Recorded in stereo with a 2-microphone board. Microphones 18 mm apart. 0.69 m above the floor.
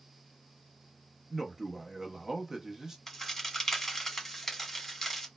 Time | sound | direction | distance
1.3 | a man speaking | 25° right (ahead or behind) | 0.7 m
3.1 | a crack | 10° left (ahead or behind) | 1.1 m